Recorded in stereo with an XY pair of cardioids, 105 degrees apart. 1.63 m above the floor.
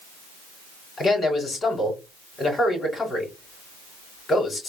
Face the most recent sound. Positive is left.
turn(degrees=40)